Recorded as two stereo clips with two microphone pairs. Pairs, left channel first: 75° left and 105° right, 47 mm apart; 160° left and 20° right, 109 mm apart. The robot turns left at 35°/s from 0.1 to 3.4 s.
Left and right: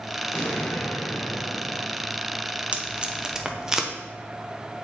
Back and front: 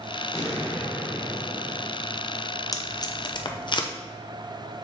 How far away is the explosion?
About 3.5 m.